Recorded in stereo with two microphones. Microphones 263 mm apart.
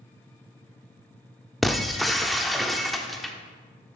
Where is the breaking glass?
Centre (ahead or behind), 0.5 m.